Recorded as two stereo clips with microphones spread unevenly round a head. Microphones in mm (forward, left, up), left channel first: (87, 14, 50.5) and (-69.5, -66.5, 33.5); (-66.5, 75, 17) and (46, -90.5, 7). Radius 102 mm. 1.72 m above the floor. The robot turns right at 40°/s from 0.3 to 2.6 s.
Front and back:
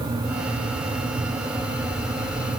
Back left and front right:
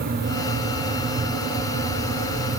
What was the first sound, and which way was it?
Only background noise.